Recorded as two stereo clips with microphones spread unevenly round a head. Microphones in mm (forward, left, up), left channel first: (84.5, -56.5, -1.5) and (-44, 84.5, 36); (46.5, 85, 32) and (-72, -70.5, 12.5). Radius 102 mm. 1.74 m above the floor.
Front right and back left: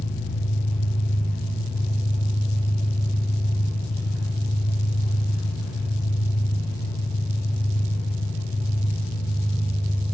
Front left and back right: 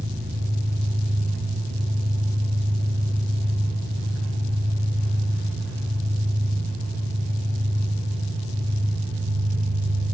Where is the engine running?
100° right, 4.5 m.